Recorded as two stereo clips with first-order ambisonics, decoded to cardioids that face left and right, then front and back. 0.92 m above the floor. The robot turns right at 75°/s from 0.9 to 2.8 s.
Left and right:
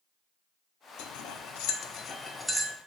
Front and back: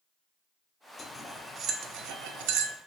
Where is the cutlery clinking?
70° left, 0.7 m; by 2.8 s 155° right, 0.7 m.